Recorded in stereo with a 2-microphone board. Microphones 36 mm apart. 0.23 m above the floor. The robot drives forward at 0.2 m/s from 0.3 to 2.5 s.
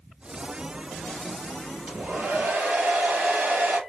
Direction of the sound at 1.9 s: 60° right (ahead or behind).